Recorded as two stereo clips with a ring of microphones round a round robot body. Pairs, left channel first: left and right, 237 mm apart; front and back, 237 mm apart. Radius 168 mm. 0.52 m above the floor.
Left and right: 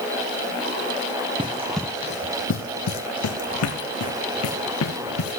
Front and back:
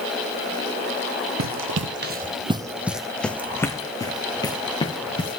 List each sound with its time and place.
1.4 s running footsteps: 160° right, 0.9 m; by 5.4 s 70° left, 3 m